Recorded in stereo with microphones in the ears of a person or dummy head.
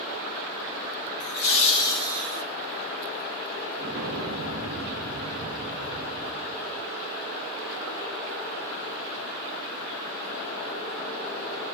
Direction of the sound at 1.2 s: 55° left (ahead or behind).